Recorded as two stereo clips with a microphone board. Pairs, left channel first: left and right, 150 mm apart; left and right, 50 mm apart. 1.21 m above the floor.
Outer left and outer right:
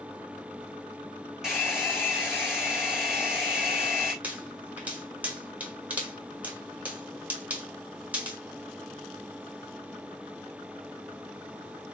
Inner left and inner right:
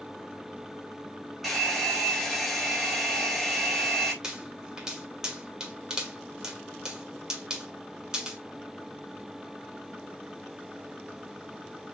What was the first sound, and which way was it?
A hair dryer, 5° right (ahead or behind).